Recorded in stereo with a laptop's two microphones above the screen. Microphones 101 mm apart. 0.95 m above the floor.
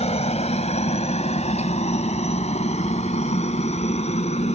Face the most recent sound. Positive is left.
turn(degrees=80)